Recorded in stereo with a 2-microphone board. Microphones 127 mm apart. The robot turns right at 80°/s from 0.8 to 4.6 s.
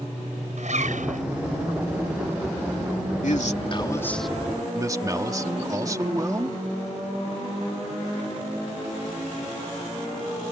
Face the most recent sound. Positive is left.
turn(degrees=-155)